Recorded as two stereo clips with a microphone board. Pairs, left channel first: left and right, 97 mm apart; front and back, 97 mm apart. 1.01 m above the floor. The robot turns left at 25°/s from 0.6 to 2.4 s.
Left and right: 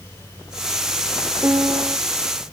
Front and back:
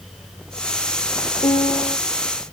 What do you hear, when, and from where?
1.4 s a piano: 25° right; by 2.0 s 40° right